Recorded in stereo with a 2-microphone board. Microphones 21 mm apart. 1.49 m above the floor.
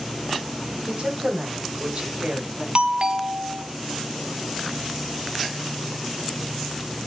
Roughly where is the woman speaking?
Right.